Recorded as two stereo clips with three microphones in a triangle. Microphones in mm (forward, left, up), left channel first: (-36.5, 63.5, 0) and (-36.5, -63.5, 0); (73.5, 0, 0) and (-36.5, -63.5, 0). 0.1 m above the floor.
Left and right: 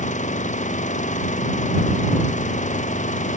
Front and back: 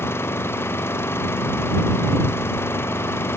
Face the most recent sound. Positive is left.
turn(degrees=100)